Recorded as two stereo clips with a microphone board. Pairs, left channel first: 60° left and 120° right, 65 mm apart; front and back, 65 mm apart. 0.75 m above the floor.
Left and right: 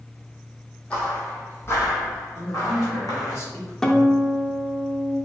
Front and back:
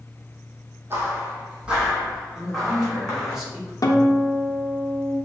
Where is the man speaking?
100° left, 1.9 m.